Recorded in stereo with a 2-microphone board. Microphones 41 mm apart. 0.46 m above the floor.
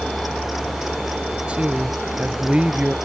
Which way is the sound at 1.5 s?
30° right (ahead or behind).